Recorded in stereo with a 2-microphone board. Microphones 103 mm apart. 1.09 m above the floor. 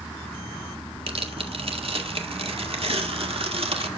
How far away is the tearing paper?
About 2 m.